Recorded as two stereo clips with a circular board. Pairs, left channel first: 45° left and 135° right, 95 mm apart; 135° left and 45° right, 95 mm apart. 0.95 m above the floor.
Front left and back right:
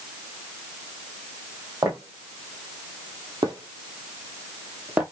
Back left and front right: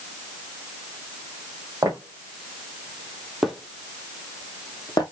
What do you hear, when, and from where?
1.8 s footsteps: 100° right, 2.0 m; by 5.0 s 155° left, 1.3 m